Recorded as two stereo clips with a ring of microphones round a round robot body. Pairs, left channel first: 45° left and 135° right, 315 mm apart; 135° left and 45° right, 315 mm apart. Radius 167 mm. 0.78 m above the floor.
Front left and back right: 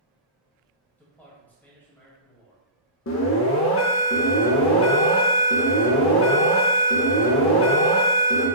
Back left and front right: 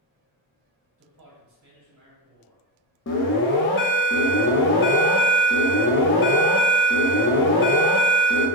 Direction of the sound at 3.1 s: 90° left.